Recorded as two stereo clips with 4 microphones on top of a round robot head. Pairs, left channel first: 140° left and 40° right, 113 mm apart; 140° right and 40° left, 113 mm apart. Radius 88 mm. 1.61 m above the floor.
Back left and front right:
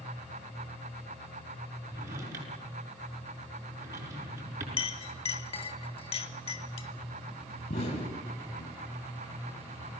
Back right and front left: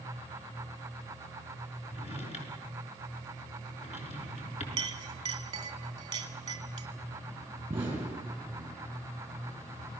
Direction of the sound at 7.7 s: 115° left.